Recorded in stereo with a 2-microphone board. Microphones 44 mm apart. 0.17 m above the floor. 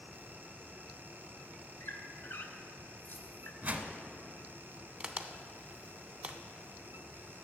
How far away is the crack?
About 0.5 m.